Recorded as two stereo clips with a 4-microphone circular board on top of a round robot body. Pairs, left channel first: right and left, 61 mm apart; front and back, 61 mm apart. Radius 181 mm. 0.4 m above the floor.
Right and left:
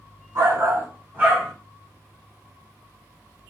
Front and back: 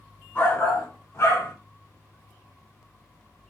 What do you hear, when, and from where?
0.3 s a shout: 60° left, 3 m; by 1.5 s 10° left, 2.5 m